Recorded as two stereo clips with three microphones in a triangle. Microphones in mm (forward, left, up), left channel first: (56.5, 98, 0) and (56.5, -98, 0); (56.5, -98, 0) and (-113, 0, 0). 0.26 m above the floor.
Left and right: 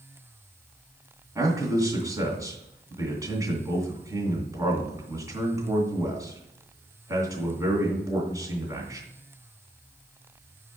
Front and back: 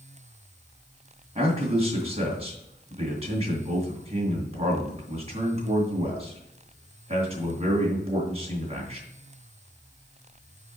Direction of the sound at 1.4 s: 160° right.